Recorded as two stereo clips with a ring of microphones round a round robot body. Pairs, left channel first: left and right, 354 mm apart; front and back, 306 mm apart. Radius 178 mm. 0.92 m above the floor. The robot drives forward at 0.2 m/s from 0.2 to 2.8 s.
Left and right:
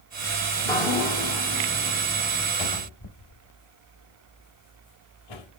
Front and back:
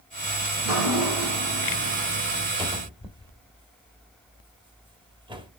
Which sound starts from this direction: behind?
Dripping, at 0.6 s.